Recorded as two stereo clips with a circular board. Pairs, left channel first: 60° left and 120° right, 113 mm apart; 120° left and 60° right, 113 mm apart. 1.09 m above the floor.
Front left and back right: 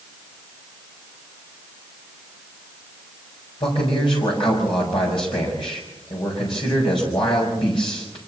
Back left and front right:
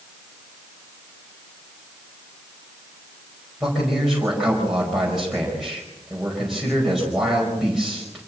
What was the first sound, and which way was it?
A man speaking, 25° left.